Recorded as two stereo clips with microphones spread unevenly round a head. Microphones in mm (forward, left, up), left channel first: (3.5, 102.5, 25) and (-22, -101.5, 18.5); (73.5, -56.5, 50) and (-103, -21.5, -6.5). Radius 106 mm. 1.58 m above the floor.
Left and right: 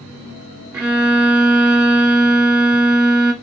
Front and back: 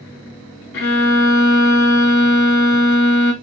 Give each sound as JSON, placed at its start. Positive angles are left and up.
{"t": 0.7, "sound": "a violin", "azimuth_deg": -10, "distance_m": 1.6}